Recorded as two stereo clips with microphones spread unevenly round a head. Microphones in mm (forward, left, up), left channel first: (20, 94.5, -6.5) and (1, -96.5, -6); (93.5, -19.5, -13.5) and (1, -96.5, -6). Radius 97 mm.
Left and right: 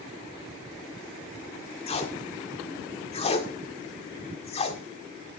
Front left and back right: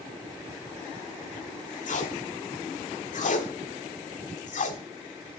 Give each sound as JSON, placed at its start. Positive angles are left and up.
{"t": 1.9, "sound": "tape being pulled", "azimuth_deg": 25, "distance_m": 1.9}